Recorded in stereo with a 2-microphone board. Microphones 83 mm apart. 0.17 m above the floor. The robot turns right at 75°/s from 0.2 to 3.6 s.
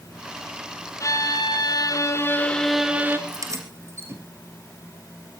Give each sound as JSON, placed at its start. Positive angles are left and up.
{"t": 1.0, "sound": "a violin", "azimuth_deg": 50, "distance_m": 1.9}
{"t": 3.3, "sound": "keys jangling", "side_deg": -55, "distance_m": 2.5}